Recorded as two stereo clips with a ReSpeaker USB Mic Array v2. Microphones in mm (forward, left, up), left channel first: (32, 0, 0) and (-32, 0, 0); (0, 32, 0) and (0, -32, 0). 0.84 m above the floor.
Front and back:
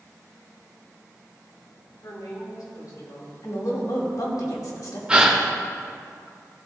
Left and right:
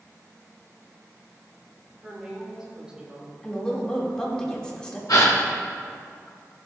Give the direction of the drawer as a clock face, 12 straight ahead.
I don't hear a drawer.